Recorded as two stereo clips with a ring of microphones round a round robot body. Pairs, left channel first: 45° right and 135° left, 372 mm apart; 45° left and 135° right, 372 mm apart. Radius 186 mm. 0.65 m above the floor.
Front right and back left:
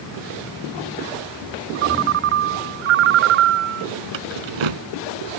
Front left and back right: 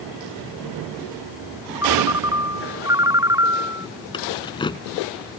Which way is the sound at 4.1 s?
125° left.